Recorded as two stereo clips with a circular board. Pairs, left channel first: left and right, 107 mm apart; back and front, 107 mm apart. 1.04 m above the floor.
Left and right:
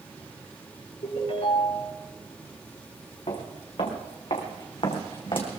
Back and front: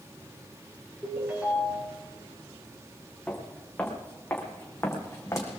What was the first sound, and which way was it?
A ringtone, 75° left.